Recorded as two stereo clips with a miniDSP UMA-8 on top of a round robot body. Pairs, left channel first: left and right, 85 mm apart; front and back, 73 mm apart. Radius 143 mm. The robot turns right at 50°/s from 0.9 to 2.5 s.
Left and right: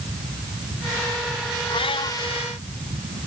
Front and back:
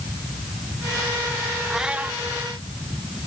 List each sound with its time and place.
1.7 s a cat meowing: 90° left; by 2.2 s 115° left